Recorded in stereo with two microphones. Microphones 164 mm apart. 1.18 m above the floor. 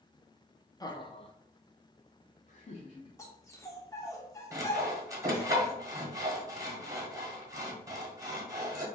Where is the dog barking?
20° left (ahead or behind), 0.8 m.